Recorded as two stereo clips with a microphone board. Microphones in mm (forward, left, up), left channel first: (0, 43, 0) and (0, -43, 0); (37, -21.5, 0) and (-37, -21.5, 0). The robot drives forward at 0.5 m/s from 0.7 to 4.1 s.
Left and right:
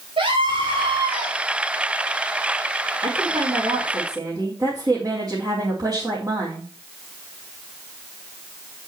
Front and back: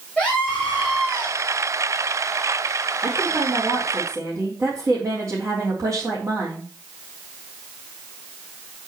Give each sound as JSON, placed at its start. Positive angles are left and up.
{"t": 0.2, "sound": "a scream", "azimuth_deg": -75, "distance_m": 2.5}
{"t": 3.0, "sound": "a woman speaking", "azimuth_deg": -120, "distance_m": 3.0}